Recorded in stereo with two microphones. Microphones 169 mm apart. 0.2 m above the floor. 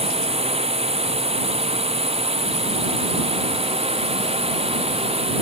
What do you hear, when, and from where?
0.0 s a drone: 35° right (ahead or behind)